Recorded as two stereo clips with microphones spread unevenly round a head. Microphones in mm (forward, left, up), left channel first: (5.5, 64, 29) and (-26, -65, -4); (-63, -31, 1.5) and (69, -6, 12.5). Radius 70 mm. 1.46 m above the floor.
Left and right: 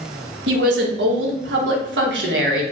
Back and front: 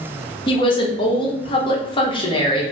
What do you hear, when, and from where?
0.5 s a woman speaking: 115° right, 0.9 m